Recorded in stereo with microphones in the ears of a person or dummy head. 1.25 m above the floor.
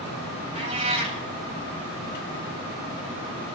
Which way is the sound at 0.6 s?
35° right (ahead or behind).